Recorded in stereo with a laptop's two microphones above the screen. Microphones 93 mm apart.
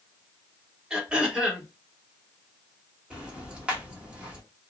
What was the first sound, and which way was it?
Throat clearing, 10° right (ahead or behind).